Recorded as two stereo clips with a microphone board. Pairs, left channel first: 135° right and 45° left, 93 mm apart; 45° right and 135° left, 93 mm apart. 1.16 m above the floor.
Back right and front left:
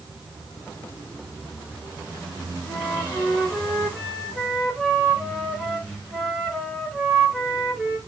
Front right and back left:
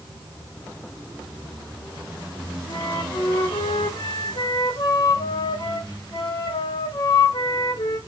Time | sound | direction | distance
2.7 | a flute | 40° right | 2.5 m